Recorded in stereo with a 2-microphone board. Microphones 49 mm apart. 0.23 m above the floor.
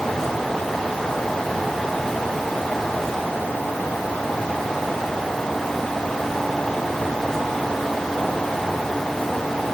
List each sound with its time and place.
Only background noise.